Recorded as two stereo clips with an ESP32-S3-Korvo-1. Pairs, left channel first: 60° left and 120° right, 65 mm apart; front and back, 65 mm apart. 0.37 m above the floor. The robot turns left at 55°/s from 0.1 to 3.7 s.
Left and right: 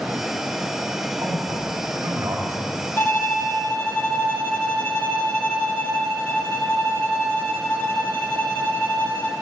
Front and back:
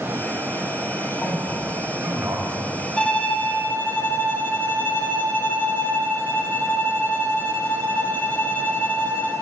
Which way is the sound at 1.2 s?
70° right.